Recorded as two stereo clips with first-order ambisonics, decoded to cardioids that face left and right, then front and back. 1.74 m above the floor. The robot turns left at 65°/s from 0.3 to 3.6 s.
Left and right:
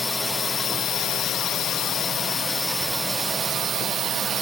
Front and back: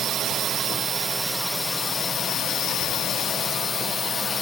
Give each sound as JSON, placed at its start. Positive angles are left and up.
{"t": 0.0, "sound": "a drone", "azimuth_deg": 160}